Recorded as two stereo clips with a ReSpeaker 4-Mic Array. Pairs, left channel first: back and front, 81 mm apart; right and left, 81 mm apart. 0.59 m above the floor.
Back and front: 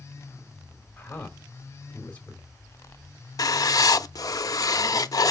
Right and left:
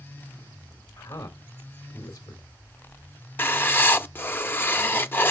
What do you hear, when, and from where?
1.0 s a man speaking: 115° right, 2.0 m
3.4 s writing: 150° right, 0.6 m